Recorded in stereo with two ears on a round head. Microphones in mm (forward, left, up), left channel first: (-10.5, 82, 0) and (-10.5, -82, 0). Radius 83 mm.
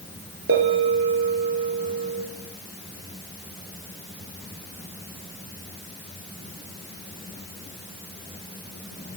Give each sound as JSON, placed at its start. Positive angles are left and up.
{"t": 0.5, "sound": "a bell", "side_deg": -70, "distance_m": 2.0}